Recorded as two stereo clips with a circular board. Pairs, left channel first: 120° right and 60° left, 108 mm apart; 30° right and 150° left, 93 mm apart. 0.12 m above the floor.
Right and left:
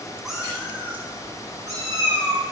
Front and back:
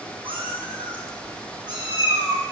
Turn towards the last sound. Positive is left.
turn(degrees=110)